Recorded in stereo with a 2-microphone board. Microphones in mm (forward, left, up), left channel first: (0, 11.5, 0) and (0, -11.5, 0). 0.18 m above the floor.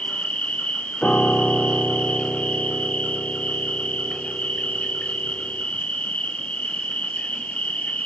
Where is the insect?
75° left (ahead or behind), 0.9 m.